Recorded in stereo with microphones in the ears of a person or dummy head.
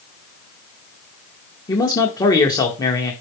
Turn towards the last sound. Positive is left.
turn(degrees=25)  # may be behind; listen again after turning